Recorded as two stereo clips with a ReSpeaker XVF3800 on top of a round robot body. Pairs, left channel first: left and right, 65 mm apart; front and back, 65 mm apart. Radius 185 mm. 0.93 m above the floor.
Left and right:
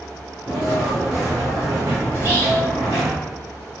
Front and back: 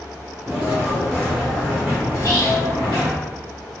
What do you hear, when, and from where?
0.5 s footsteps: 105° right, 1.3 m; by 3.1 s 25° right, 1.5 m
2.1 s whispering: 40° right, 1.1 m